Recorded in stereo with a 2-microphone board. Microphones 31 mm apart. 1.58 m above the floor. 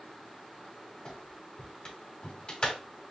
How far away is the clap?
About 2.5 m.